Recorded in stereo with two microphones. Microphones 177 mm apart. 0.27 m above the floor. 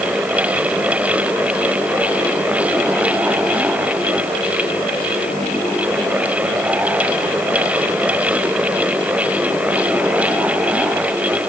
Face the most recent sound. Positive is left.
No sound to turn to.